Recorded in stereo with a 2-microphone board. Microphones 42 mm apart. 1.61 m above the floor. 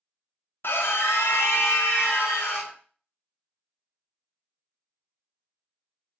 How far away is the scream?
About 0.5 m.